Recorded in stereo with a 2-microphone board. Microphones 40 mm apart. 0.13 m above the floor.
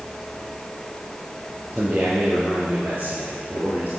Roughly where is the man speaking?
Right.